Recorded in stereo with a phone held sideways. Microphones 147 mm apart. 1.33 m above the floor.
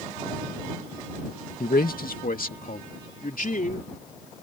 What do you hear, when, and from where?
1.6 s a man speaking: 80° left; by 3.9 s 65° left (ahead or behind)